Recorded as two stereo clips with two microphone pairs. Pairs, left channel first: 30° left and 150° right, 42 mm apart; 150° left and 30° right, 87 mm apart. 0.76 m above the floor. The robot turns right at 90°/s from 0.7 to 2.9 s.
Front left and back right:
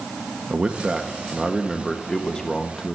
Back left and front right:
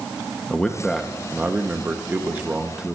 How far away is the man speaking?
About 0.9 m.